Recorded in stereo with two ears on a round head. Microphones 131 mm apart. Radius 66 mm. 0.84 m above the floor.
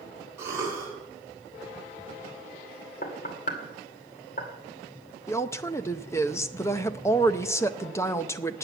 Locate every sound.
0.4 s a cough: 20° right (ahead or behind), 7.5 m
3.0 s knocking: 60° left (ahead or behind), 2 m
5.3 s a woman speaking: 20° left (ahead or behind), 0.6 m